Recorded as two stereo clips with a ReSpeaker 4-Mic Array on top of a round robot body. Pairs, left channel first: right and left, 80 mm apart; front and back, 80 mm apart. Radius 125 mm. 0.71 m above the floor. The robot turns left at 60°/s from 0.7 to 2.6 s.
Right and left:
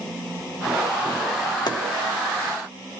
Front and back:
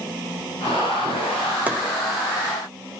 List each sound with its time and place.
1.7 s chopping: 115° right, 2.5 m; by 1.8 s 120° right, 2.5 m